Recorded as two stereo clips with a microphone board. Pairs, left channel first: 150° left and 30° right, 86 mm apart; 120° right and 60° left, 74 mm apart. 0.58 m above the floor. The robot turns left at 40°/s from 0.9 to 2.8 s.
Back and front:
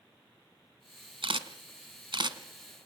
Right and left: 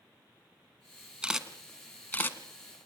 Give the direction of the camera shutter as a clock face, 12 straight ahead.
1 o'clock.